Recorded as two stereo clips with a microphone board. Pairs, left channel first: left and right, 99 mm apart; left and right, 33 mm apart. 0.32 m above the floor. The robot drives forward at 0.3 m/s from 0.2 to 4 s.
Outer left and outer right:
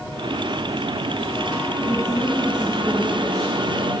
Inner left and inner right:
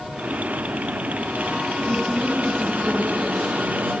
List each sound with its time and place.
1.8 s a woman speaking: 15° left (ahead or behind), 2.5 m